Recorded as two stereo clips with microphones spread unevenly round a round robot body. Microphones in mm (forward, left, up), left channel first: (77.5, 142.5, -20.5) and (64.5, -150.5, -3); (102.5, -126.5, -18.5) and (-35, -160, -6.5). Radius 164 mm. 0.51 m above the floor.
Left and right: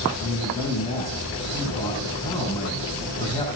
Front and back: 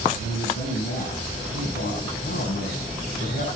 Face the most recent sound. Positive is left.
turn(degrees=15)